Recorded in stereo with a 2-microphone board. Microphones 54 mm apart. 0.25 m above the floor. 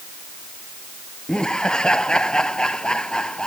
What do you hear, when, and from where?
1.3 s laughter: 15° left (ahead or behind)